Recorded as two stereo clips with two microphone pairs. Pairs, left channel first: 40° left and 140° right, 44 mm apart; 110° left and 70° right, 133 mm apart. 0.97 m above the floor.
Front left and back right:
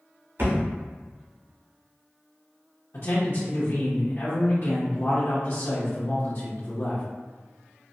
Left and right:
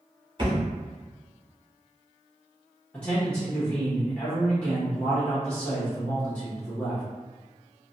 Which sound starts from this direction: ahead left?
A man speaking, at 2.9 s.